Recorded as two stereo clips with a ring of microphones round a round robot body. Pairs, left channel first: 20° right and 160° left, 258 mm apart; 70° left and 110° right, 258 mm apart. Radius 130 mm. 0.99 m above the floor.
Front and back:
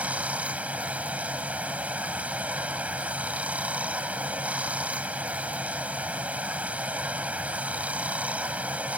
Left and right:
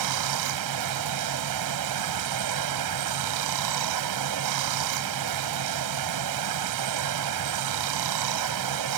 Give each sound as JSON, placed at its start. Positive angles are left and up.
{"t": 0.0, "sound": "running water", "azimuth_deg": -115}